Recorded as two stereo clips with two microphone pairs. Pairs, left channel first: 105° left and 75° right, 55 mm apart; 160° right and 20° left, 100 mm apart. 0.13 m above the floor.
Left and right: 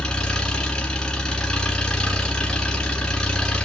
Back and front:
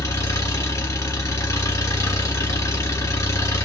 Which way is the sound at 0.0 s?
170° left.